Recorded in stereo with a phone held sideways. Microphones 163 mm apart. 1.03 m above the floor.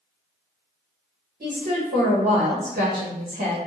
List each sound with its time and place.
1.4 s a woman speaking: 70° right (ahead or behind), 1.2 m